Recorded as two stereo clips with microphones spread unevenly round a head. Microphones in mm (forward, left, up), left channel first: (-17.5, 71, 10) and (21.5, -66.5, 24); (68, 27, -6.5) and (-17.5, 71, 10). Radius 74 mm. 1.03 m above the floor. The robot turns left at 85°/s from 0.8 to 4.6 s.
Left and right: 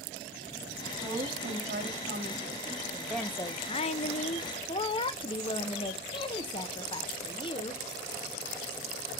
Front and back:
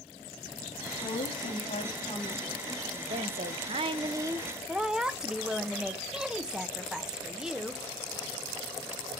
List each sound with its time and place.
1.0 s a woman speaking: 15° left, 2.5 m; by 2.8 s 140° right, 2.5 m
2.9 s a woman speaking: 155° right, 1.0 m; by 7.8 s 65° left, 1.0 m